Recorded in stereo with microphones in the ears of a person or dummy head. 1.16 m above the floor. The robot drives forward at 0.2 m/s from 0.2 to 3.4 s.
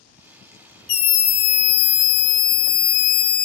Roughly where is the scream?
Left.